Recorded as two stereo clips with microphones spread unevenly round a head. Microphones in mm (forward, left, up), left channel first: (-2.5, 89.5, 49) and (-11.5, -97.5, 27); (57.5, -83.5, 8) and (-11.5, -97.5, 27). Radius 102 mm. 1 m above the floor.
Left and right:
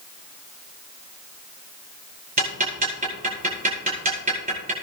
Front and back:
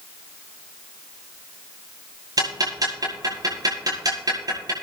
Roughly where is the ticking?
Behind right.